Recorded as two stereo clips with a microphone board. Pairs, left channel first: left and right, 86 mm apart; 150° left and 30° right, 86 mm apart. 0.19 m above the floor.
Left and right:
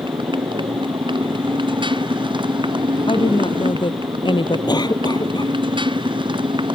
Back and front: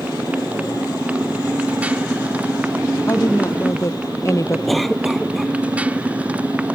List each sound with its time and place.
0.0 s a motorcycle: 105° right
3.1 s a woman speaking: 95° left
4.7 s a cough: 60° left